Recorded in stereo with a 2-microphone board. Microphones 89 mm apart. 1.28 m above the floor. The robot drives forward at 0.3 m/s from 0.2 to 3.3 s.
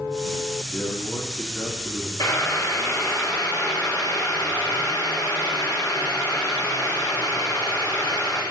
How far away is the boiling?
About 3 m.